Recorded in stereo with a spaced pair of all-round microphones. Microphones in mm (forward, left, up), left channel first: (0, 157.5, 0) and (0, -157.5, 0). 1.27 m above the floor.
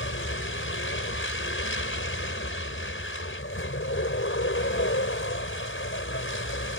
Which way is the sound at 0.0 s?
45° left (ahead or behind).